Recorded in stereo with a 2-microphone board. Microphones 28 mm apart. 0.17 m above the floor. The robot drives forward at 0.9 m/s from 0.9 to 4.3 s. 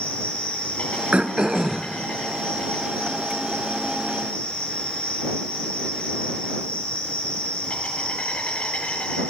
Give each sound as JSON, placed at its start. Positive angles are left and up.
{"t": 0.0, "sound": "an insect", "side_deg": 60, "distance_m": 7.5}
{"t": 1.1, "sound": "throat clearing", "side_deg": -50, "distance_m": 0.6}